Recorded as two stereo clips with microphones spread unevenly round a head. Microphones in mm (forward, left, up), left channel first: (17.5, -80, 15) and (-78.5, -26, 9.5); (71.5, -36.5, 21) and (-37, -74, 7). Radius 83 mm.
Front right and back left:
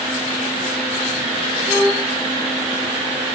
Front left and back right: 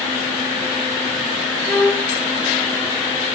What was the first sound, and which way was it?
A violin, 40° left.